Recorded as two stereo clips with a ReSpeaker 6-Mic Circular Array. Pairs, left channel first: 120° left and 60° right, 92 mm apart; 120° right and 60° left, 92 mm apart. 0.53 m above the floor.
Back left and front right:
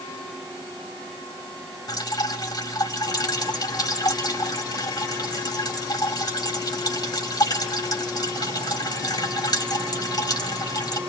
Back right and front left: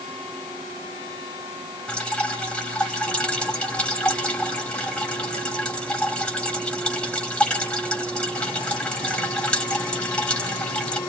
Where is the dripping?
160° left, 3 m.